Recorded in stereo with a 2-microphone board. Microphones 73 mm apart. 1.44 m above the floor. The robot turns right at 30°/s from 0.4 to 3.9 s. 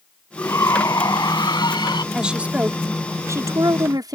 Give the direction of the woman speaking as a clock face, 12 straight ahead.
6 o'clock.